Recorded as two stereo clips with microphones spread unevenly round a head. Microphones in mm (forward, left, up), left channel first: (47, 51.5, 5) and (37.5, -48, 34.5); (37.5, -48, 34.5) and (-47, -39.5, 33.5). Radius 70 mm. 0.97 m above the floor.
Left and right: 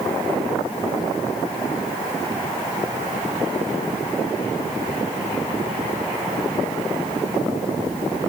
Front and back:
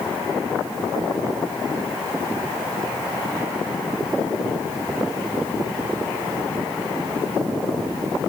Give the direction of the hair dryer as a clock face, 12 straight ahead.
I don't hear a hair dryer.